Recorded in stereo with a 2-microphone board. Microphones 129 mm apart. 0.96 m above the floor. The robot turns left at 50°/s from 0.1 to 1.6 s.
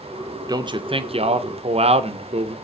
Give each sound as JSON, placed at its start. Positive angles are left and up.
{"t": 0.5, "sound": "a man speaking", "azimuth_deg": -40, "distance_m": 0.6}